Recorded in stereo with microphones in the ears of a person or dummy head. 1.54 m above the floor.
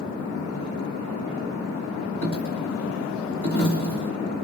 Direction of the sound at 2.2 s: 50° right (ahead or behind).